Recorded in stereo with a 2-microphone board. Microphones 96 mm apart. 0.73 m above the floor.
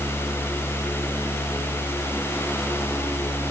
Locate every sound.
Only background noise.